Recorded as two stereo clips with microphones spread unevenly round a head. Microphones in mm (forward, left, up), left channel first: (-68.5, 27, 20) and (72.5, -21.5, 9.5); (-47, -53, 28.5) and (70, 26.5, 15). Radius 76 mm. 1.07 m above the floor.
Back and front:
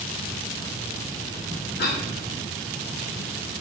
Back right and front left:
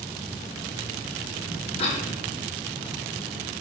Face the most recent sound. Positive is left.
turn(degrees=165)